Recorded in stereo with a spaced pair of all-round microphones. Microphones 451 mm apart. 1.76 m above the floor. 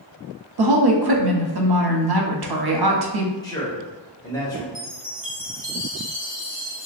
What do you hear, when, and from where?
0.6 s a woman speaking: 55° right (ahead or behind), 0.5 m
3.4 s a man speaking: 10° left (ahead or behind), 1.0 m
4.8 s a chime: 25° left (ahead or behind), 0.9 m